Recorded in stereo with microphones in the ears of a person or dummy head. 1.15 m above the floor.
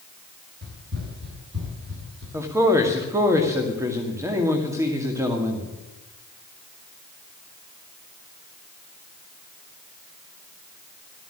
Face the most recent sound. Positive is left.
turn(degrees=-15)  # may be behind; listen again after turning